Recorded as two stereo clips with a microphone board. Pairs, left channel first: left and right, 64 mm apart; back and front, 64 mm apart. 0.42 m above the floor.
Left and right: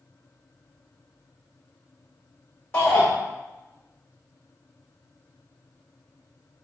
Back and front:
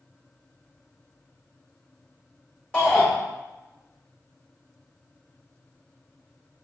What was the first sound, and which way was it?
A shout, 120° left.